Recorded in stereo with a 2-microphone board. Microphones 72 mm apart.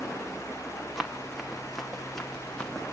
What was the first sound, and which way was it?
Running footsteps, 5° right (ahead or behind).